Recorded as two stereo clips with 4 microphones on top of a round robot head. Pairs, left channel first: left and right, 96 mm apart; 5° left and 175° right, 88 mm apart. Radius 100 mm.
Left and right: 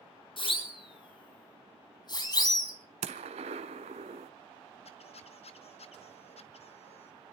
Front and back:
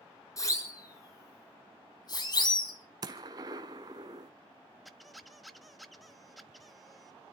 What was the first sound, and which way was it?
A siren, 60° left.